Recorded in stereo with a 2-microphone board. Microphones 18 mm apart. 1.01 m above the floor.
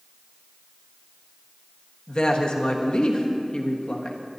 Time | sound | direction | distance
2.1 | a woman speaking | 55° left (ahead or behind) | 1.3 m